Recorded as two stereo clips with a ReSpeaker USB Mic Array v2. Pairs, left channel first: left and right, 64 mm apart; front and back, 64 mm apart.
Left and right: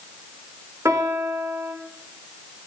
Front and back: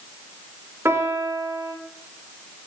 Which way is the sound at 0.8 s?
130° right.